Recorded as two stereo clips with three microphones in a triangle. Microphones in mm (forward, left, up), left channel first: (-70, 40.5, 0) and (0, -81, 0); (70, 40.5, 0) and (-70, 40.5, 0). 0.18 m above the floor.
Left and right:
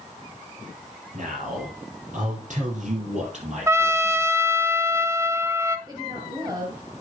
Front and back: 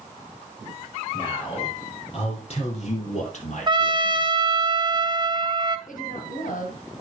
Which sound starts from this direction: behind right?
A trumpet, at 3.7 s.